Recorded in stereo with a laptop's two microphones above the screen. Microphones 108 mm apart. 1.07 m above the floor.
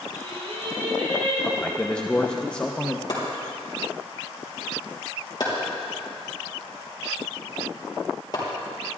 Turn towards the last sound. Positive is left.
turn(degrees=40)  # may be behind; listen again after turning